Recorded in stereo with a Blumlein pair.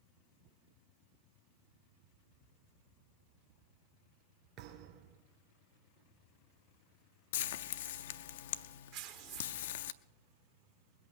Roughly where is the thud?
Ahead right.